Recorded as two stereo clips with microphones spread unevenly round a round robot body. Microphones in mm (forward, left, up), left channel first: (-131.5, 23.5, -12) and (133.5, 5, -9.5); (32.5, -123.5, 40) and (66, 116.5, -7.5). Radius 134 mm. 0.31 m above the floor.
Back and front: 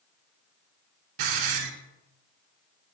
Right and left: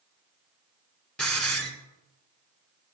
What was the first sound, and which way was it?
A hiss, 10° right.